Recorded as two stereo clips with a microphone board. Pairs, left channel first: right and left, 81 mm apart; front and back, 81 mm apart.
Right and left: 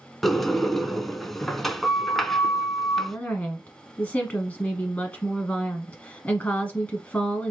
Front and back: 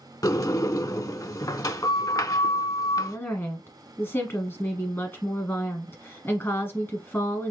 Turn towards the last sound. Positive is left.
turn(degrees=-30)